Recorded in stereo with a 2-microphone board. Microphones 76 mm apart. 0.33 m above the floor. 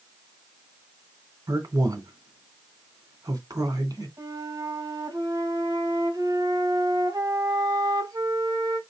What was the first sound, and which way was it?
A man speaking, 55° right (ahead or behind).